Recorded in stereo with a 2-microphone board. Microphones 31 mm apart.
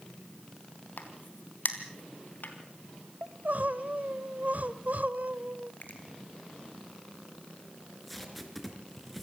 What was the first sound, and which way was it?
A crack, 75° left (ahead or behind).